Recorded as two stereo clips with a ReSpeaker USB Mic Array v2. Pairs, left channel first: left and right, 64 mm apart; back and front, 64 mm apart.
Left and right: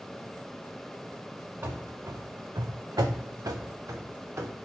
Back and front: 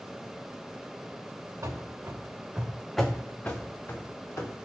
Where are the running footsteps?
40° right, 0.8 m; by 4.5 s 135° right, 1.1 m.